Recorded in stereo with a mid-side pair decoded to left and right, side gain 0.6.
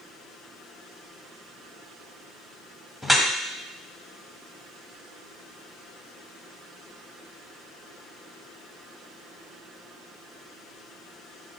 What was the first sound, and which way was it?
Dripping, 5° left.